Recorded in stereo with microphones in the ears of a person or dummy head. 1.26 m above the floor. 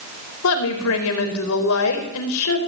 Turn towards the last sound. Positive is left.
turn(degrees=75)  # may be behind; listen again after turning